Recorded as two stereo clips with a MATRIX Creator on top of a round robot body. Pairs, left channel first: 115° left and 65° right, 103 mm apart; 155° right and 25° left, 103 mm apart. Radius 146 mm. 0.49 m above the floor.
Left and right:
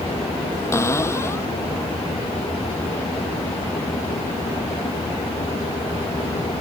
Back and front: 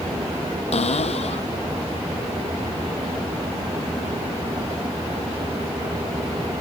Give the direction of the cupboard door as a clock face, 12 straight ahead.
6 o'clock.